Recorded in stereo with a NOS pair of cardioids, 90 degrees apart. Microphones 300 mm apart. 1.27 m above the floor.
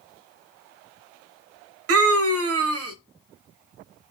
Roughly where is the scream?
Ahead right.